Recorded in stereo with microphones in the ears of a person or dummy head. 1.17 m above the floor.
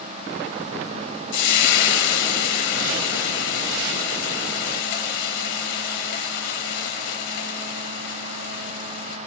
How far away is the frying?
About 1.0 m.